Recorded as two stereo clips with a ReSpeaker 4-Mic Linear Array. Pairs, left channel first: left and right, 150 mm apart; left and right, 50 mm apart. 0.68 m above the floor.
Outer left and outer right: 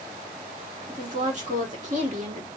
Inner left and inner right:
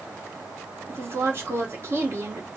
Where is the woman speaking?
50° right (ahead or behind), 1.5 m.